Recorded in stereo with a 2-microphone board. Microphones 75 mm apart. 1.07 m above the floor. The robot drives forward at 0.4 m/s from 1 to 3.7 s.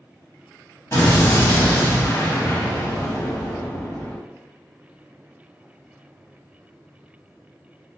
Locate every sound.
0.9 s an explosion: 40° left (ahead or behind), 1.4 m; by 4.2 s 45° left (ahead or behind), 1.3 m